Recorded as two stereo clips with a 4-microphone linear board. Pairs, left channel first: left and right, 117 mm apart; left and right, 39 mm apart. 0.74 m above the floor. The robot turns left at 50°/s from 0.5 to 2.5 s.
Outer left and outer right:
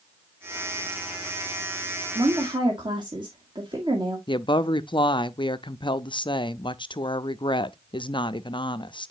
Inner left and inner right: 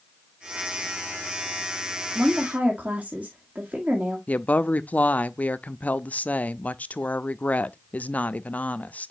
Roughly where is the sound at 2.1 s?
Right.